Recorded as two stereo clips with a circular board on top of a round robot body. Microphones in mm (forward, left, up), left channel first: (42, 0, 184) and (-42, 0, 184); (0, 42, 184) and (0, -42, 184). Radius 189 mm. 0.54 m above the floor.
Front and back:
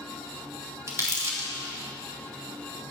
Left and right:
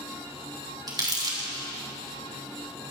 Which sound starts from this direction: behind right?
Crumpling, at 0.9 s.